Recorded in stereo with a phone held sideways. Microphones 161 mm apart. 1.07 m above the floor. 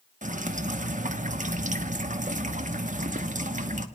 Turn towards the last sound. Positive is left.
turn(degrees=-50)  # may be behind; listen again after turning